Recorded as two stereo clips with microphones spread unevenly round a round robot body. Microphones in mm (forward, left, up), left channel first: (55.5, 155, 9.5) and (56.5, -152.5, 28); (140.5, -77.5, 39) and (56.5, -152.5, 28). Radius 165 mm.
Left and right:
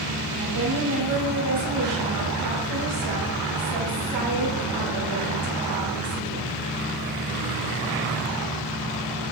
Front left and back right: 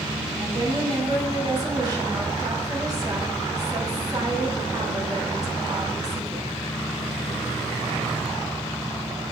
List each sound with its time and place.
0.4 s a woman speaking: 85° right, 5 m